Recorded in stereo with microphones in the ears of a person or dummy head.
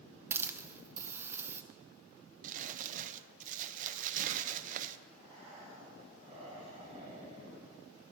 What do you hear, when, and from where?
0.3 s a hiss: 15° right (ahead or behind), 0.9 m
2.4 s crumpling: 45° right (ahead or behind), 0.6 m
5.1 s breathing: 35° right (ahead or behind), 3.5 m